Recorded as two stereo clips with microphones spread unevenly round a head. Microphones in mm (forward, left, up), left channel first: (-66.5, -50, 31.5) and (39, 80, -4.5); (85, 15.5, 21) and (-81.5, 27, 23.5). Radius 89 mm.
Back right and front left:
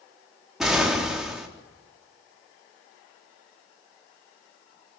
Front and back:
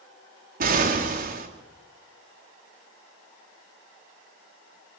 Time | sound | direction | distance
0.6 | an explosion | 140° left | 3.5 m